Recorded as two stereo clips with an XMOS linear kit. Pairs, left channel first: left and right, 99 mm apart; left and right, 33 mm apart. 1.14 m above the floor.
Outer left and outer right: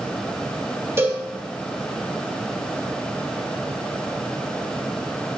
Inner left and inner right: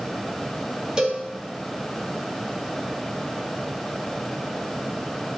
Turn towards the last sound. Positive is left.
turn(degrees=-25)  # may be behind; listen again after turning